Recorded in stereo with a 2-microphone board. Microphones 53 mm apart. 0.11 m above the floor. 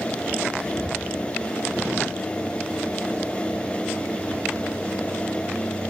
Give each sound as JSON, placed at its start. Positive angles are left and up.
{"t": 0.6, "sound": "whispering", "side_deg": 10, "distance_m": 7.5}